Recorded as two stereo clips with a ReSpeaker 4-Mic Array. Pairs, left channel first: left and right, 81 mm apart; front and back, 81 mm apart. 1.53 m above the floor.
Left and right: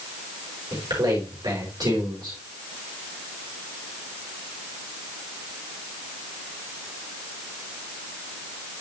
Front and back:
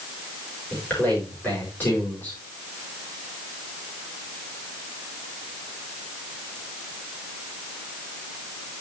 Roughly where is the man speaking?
Right.